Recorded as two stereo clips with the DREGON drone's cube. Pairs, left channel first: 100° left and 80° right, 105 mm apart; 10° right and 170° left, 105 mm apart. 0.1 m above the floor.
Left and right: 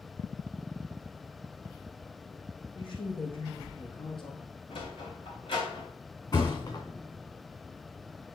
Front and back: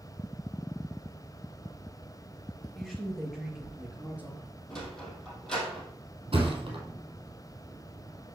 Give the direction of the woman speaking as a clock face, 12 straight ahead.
9 o'clock.